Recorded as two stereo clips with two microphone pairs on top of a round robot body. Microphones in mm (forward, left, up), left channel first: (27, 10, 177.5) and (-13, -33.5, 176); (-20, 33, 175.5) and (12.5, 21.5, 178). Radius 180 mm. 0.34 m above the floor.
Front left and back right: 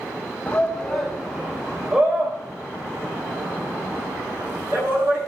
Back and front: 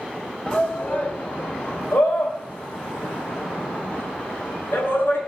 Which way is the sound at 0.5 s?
110° left.